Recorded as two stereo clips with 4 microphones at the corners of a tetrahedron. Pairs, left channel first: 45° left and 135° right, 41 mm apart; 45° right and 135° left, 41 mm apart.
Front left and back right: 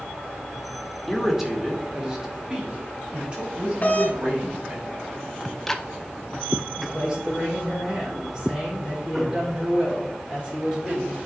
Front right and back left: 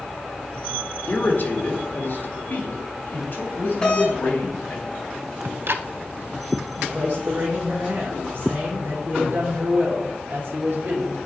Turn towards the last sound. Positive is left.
turn(degrees=140)